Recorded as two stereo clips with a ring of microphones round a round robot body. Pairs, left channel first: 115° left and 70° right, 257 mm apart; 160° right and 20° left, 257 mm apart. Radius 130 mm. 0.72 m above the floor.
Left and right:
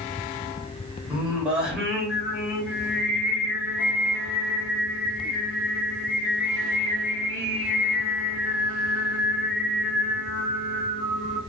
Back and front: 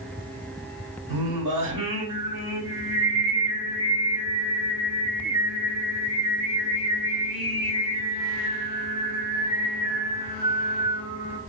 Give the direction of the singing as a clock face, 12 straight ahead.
11 o'clock.